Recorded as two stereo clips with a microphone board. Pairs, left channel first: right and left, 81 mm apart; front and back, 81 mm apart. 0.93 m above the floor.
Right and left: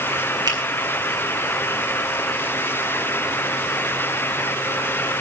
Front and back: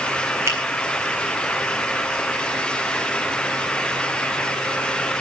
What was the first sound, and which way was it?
A finger snap, 125° left.